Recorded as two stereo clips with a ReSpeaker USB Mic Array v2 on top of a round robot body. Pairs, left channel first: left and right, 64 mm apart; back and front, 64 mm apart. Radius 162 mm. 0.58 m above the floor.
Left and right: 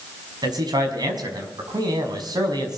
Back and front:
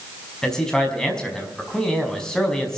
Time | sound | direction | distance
0.4 | a man speaking | 100° right | 5.5 m